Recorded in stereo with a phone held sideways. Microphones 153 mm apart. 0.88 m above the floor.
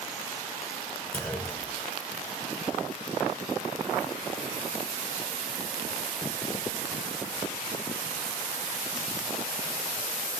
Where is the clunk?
10° left (ahead or behind), 4.5 m.